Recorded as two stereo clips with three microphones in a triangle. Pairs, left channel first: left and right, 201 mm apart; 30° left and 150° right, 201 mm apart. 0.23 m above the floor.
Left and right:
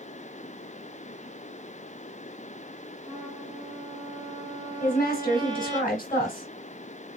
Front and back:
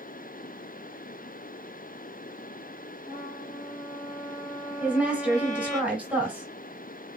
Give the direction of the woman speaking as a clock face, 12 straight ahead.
8 o'clock.